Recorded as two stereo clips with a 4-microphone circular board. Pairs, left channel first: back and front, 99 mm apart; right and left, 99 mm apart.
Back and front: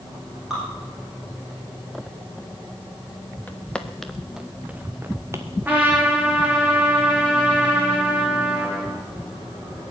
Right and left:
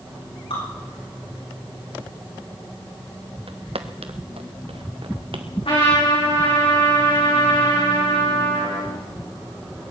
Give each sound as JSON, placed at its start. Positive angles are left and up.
{"t": 0.5, "sound": "dripping", "azimuth_deg": -85, "distance_m": 9.0}
{"t": 3.5, "sound": "footsteps", "azimuth_deg": 105, "distance_m": 1.4}
{"t": 5.7, "sound": "a trumpet", "azimuth_deg": -70, "distance_m": 6.0}